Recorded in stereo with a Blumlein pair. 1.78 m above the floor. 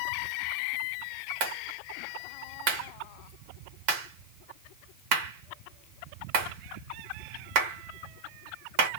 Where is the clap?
45° right, 1.7 m.